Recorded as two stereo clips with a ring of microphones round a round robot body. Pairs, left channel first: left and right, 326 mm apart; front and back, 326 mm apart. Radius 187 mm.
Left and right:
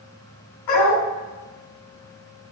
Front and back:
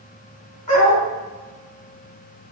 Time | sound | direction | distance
0.7 | a dog barking | 70° left | 2.0 m